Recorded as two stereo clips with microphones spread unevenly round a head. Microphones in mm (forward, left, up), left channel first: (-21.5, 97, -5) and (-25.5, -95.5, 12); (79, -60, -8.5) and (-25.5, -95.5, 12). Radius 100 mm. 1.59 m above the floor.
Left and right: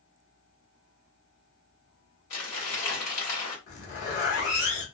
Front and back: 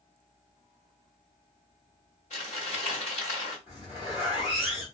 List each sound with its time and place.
2.3 s crumpling: 75° left, 1.6 m
3.7 s a zipper: 85° left, 1.1 m